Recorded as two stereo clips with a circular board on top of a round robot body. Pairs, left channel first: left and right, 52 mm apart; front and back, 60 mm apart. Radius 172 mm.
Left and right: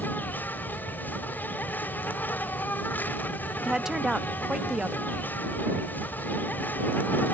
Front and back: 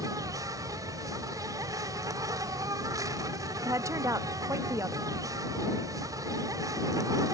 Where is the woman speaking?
170° right.